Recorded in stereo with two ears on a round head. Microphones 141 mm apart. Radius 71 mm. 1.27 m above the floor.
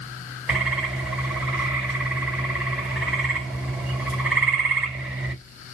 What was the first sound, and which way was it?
A bird, 5° right (ahead or behind).